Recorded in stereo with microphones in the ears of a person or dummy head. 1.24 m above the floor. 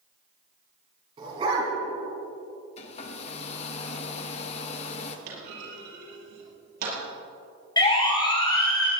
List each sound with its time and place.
1.2 s a dog barking: 30° right (ahead or behind), 5.5 m
2.8 s a hair dryer: 40° left (ahead or behind), 1.3 m
5.3 s a clunk: 60° right (ahead or behind), 6 m
7.8 s a siren: 25° left (ahead or behind), 6.5 m